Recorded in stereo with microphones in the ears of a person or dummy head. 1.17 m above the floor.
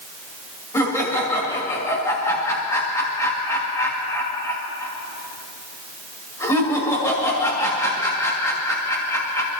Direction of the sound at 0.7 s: 10° left (ahead or behind).